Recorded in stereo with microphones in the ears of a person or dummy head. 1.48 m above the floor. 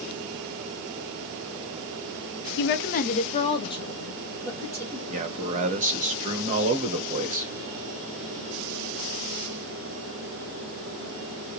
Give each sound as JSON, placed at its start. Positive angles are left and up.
{"t": 2.6, "sound": "a woman speaking", "side_deg": 60, "distance_m": 0.5}
{"t": 5.1, "sound": "a man speaking", "side_deg": -30, "distance_m": 1.2}